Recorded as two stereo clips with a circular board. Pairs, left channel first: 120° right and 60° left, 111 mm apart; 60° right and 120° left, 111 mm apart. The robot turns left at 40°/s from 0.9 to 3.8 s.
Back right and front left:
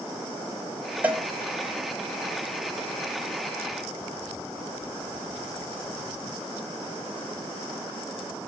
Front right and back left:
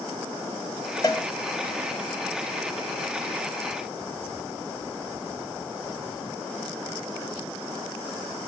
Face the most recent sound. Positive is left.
turn(degrees=-125)